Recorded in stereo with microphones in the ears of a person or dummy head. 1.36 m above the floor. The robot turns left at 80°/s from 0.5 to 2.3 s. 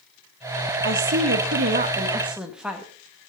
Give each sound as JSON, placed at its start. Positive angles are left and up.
{"t": 0.8, "sound": "a woman speaking", "azimuth_deg": -60, "distance_m": 2.5}